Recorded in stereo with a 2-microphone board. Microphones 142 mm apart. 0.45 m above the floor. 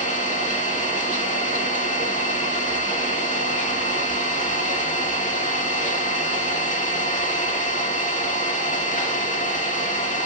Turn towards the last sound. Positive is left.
turn(degrees=55)  # may be behind; listen again after turning